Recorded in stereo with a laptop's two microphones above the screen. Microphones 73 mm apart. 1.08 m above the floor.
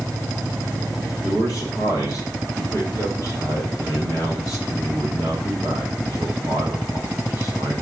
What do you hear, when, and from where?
1.2 s a man speaking: 45° left (ahead or behind), 3.5 m